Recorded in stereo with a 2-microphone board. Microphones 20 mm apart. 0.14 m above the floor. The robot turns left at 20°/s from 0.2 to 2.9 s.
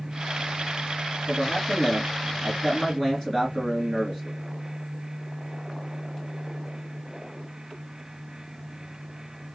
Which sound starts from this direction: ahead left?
A man speaking, at 1.3 s.